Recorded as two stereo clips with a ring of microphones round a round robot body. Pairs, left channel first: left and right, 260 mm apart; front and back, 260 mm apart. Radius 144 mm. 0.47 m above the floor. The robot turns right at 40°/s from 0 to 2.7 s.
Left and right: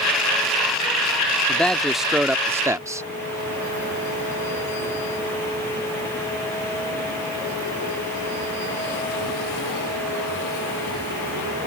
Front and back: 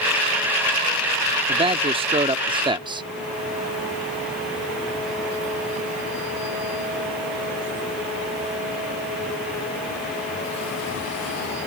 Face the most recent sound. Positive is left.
turn(degrees=-150)